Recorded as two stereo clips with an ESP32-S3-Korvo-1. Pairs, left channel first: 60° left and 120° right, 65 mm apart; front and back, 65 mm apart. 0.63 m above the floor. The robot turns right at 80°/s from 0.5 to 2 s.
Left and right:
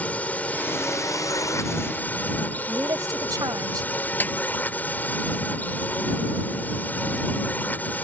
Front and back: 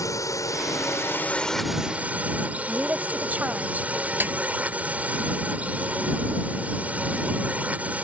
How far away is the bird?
No bird in this recording.